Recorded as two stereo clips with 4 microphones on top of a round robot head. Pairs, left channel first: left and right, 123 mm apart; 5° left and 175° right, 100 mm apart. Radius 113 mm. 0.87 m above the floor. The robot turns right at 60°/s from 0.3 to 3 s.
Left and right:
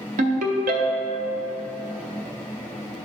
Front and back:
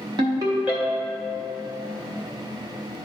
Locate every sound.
0.2 s a ringtone: 120° right, 0.8 m; by 1.3 s 60° right, 0.8 m